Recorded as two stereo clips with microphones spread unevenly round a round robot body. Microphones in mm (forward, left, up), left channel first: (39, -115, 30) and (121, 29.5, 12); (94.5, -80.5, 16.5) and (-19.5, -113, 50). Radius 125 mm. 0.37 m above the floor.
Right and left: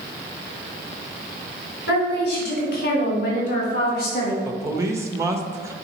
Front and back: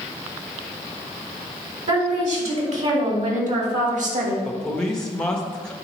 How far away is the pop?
I don't hear a pop.